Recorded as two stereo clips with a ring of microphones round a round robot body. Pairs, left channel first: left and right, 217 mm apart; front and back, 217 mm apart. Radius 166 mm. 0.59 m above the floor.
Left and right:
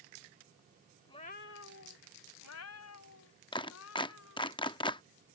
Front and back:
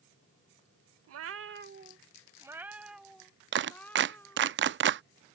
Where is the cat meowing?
170° left; by 4.5 s 80° left.